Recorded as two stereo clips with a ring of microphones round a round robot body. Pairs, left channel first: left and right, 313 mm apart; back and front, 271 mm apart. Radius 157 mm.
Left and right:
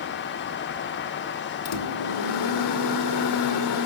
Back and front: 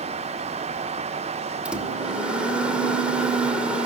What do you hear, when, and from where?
1.6 s a microwave: 85° left, 2 m